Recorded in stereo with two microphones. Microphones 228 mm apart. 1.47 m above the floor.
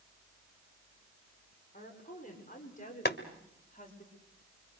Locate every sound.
1.7 s a woman speaking: 35° left (ahead or behind), 6.5 m
3.0 s boiling: 45° left (ahead or behind), 1.6 m